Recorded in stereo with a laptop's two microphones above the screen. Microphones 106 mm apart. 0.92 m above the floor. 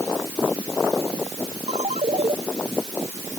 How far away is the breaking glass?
I don't hear breaking glass.